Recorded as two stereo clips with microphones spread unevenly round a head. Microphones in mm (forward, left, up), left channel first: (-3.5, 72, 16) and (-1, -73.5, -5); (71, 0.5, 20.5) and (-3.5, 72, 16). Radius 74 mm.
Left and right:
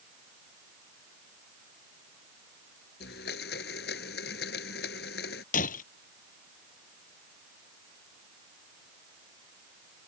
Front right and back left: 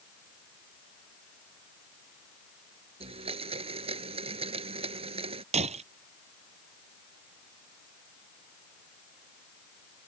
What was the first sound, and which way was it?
A blender, 110° left.